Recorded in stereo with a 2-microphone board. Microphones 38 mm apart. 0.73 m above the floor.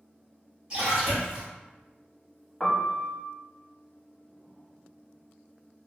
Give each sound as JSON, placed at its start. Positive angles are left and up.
{"t": 0.7, "sound": "a splash", "side_deg": -20, "distance_m": 1.9}
{"t": 2.6, "sound": "a piano", "side_deg": 5, "distance_m": 0.7}